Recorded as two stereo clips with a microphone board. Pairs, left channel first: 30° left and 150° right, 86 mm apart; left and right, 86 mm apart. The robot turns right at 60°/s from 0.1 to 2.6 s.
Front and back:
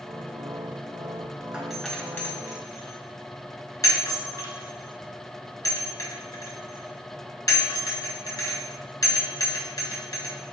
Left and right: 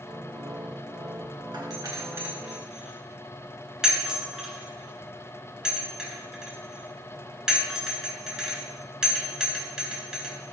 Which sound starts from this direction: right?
A doorbell, at 1.5 s.